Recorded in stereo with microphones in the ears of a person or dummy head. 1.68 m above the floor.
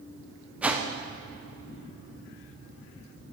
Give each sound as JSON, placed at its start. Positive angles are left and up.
{"t": 0.6, "sound": "a whoosh", "side_deg": -5, "distance_m": 1.0}